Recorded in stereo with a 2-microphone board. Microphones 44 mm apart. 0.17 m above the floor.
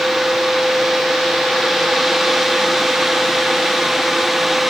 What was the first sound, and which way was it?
Only background noise.